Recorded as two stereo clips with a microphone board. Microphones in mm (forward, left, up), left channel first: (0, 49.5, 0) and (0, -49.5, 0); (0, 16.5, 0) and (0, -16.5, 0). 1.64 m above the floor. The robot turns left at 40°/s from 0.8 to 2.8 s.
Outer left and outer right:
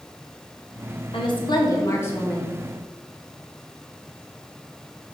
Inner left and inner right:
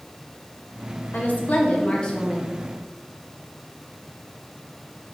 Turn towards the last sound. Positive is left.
turn(degrees=-5)